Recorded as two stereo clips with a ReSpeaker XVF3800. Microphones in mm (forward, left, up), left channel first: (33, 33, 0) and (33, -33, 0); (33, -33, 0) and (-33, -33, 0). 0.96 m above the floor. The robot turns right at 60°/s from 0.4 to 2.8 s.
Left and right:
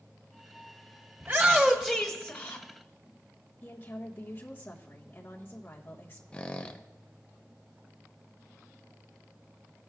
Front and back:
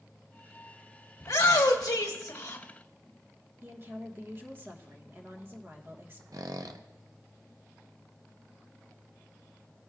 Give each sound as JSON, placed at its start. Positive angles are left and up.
{"t": 1.2, "sound": "a shout", "azimuth_deg": -25, "distance_m": 1.2}
{"t": 3.6, "sound": "a woman speaking", "azimuth_deg": 135, "distance_m": 1.2}
{"t": 6.3, "sound": "a squeak", "azimuth_deg": 160, "distance_m": 0.5}